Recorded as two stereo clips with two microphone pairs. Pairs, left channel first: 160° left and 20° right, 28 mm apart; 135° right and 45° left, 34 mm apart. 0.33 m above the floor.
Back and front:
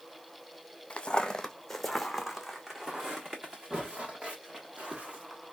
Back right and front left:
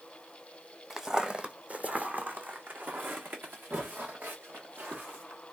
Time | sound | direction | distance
0.9 | footsteps | 120° left | 0.8 m